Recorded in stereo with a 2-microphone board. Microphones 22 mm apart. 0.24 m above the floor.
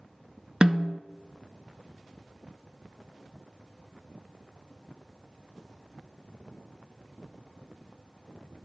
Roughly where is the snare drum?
Right.